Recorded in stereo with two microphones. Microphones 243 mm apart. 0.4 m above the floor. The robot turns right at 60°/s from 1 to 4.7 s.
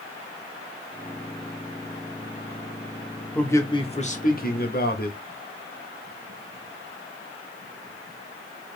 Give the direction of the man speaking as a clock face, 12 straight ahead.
12 o'clock.